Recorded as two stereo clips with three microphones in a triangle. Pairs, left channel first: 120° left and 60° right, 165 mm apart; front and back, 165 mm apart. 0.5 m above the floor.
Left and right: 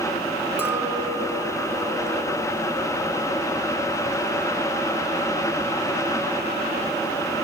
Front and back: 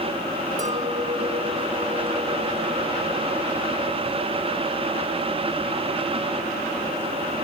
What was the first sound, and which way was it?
A clink, 140° right.